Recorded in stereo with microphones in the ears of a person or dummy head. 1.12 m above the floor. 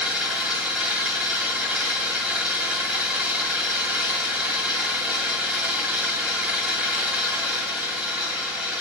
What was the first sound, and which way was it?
An engine running, centre (ahead or behind).